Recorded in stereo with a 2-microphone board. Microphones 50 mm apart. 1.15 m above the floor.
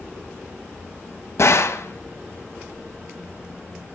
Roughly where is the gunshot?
Left.